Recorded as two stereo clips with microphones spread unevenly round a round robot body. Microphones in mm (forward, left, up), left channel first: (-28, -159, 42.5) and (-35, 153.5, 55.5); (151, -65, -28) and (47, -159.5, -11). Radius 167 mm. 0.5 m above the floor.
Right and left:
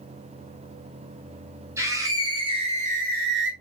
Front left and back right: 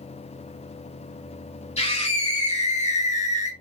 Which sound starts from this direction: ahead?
A scream, at 1.8 s.